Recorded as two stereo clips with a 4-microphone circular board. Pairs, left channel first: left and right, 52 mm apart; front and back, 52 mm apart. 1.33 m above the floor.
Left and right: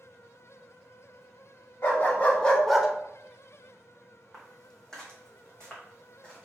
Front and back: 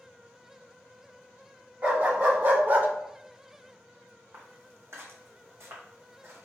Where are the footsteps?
170° left, 2 m; by 6.5 s 155° left, 3.5 m.